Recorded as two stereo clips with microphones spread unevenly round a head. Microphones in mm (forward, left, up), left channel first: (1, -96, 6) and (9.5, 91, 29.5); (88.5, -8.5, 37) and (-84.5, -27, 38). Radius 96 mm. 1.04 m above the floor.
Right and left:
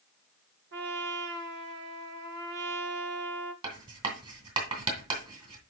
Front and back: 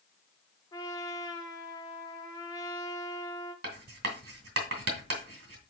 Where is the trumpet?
75° left, 1.0 m.